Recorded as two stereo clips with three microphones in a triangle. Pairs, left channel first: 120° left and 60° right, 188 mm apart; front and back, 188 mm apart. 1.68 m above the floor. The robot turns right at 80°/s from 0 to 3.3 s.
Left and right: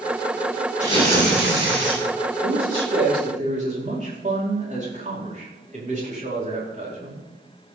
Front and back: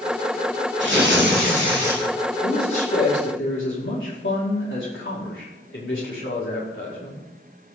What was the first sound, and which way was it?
Tearing paper, 170° left.